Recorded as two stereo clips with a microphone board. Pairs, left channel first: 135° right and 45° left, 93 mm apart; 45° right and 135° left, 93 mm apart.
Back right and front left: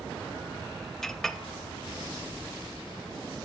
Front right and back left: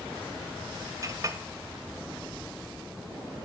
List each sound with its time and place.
1.0 s a clink: 140° left, 0.6 m